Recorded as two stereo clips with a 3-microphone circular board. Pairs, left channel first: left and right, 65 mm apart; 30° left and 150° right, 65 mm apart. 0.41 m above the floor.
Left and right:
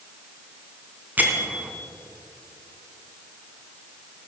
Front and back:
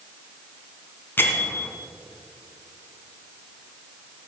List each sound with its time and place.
1.2 s a bell: 25° right, 1.7 m